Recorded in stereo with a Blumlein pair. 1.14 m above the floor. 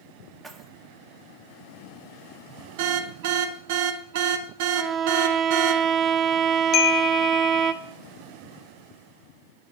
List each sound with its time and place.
0.4 s keys jangling: 10° right, 1.5 m
2.8 s an alarm: 50° right, 1.3 m
4.8 s a violin: 20° right, 0.7 m
6.7 s a chime: 35° left, 1.1 m